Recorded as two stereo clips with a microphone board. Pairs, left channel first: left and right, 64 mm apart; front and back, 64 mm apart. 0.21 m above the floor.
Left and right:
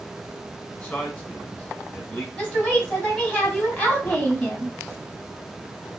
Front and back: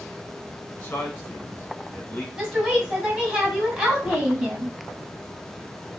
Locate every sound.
0.8 s a man speaking: 35° left, 1.3 m
2.4 s a woman speaking: 120° left, 1.5 m